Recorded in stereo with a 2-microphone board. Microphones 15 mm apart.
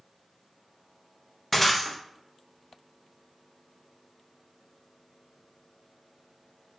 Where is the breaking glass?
5° left (ahead or behind), 0.8 m.